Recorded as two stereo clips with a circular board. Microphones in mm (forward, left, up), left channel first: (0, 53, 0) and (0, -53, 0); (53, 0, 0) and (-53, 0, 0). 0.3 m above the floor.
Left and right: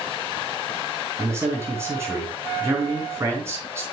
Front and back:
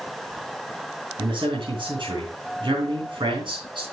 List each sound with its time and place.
1.2 s a man speaking: 150° right, 3.5 m